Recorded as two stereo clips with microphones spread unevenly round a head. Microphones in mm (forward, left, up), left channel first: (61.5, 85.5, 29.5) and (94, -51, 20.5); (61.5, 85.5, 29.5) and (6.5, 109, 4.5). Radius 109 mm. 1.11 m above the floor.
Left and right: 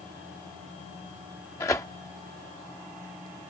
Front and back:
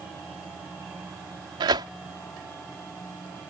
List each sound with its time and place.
1.6 s tearing paper: straight behind